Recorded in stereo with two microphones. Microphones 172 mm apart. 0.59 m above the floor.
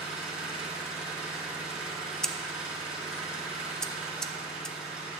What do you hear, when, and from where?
0.0 s an engine running: 5° right (ahead or behind), 4 m
2.2 s scissors: 5° left (ahead or behind), 0.6 m